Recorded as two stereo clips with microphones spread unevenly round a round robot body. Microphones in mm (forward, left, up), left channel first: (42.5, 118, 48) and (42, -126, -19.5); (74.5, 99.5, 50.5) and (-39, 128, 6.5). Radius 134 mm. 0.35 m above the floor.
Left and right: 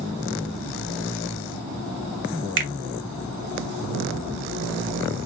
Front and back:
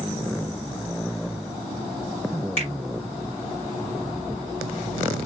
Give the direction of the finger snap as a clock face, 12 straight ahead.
2 o'clock.